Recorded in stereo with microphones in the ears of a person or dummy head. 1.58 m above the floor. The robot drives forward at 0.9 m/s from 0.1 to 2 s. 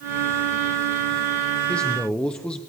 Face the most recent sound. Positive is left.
turn(degrees=5)  # may be behind; listen again after turning